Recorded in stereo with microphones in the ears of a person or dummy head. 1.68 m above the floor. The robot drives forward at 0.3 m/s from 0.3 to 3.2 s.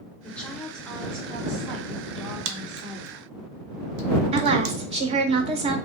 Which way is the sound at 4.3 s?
25° right (ahead or behind).